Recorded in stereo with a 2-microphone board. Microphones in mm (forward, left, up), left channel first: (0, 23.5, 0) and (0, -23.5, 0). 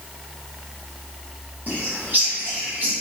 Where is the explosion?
I don't hear an explosion.